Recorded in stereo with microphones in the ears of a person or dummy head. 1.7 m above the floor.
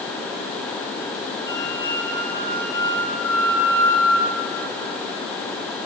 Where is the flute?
70° right (ahead or behind), 9 m.